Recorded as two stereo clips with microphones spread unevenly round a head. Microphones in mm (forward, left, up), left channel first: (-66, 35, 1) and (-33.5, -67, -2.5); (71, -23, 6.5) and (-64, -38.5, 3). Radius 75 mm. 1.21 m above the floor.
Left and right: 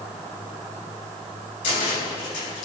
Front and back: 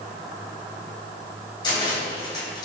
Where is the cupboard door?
70° left, 3 m.